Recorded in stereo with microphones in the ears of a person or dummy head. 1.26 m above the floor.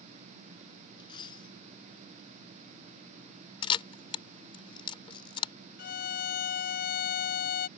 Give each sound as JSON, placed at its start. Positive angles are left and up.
{"t": 1.0, "sound": "a dropped coin", "side_deg": 25}
{"t": 3.6, "sound": "a camera shutter", "side_deg": 30}
{"t": 5.8, "sound": "a violin", "side_deg": 40}